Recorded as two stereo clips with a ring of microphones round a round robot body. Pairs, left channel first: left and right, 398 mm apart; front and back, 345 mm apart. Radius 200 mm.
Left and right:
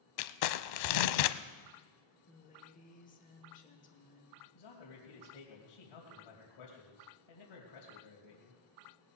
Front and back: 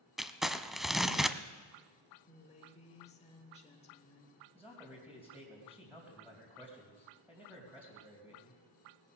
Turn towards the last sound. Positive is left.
turn(degrees=95)